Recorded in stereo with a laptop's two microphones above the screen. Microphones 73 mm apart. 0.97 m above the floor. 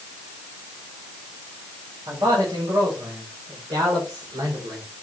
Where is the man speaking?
85° right, 4.5 m; by 4.8 s 80° right, 3 m.